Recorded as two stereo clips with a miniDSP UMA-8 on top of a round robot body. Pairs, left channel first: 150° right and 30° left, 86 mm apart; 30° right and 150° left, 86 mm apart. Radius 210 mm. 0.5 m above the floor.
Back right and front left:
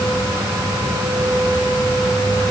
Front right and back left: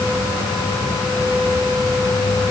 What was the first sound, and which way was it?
Only background noise.